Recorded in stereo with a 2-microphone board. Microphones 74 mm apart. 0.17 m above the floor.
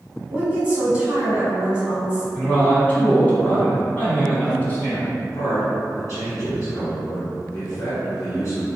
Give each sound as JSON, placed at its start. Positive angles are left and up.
{"t": 0.3, "sound": "a woman speaking", "side_deg": -20, "distance_m": 1.0}
{"t": 2.3, "sound": "a man speaking", "side_deg": 20, "distance_m": 1.4}
{"t": 5.2, "sound": "a man speaking", "side_deg": 45, "distance_m": 1.4}